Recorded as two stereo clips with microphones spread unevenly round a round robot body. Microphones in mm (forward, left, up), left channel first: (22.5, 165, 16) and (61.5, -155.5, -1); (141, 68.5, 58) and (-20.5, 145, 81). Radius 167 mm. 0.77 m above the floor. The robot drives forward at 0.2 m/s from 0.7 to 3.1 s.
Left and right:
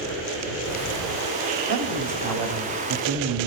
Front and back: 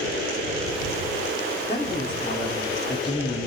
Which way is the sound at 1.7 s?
85° right.